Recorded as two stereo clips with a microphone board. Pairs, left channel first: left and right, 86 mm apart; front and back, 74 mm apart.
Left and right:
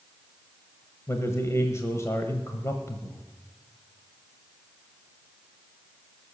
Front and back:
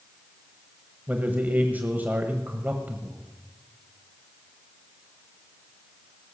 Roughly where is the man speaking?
Behind left.